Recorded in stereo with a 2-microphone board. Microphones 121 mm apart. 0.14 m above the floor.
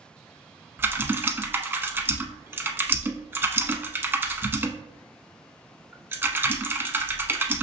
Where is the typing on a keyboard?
20° right (ahead or behind), 0.6 m.